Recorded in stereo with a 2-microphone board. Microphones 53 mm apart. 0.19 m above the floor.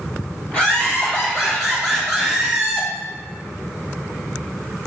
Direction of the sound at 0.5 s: 20° left (ahead or behind).